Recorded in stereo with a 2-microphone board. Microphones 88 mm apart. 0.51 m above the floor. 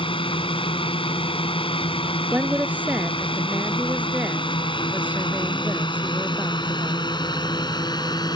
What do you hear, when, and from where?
0.0 s a drone: 70° left (ahead or behind); by 8.4 s 50° left (ahead or behind)
2.3 s a woman speaking: 15° right (ahead or behind)